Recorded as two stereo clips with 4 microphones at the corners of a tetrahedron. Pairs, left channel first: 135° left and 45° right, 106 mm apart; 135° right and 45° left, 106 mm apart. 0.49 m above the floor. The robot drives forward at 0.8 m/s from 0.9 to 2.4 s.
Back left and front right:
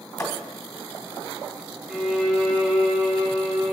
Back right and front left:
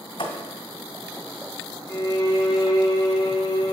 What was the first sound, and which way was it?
A thud, 170° right.